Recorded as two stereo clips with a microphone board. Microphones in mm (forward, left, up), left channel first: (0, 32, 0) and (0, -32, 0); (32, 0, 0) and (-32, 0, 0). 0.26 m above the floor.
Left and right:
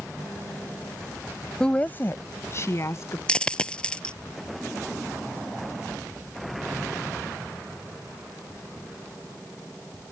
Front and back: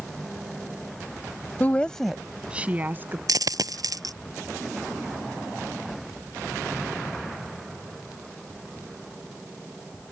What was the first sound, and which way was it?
A woman speaking, 25° left.